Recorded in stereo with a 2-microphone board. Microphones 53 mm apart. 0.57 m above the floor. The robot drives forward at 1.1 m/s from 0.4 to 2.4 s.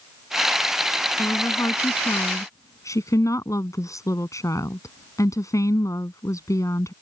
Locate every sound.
1.2 s a woman speaking: 75° left (ahead or behind); by 6.9 s 80° left